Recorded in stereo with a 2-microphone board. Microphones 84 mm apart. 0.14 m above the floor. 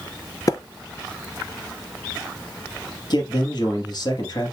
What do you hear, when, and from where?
0.5 s a splash: 45° left (ahead or behind), 0.7 m
3.1 s a man speaking: 55° left (ahead or behind), 3.5 m